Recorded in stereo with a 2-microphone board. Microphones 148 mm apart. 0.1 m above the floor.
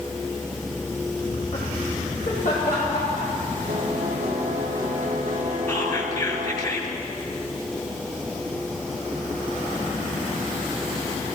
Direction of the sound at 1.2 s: 45° left (ahead or behind).